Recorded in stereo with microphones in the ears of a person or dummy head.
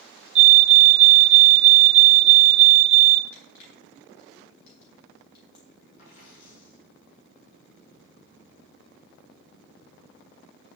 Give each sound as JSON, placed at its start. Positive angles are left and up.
{"t": 0.3, "sound": "a fire alarm", "side_deg": -40, "distance_m": 1.2}
{"t": 3.3, "sound": "crushing", "side_deg": 60, "distance_m": 7.0}
{"t": 6.0, "sound": "a dropped coin", "side_deg": 45, "distance_m": 7.5}